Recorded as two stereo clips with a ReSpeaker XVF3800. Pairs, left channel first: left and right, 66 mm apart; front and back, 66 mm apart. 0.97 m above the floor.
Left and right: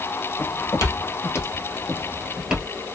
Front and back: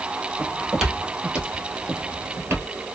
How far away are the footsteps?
About 1.7 m.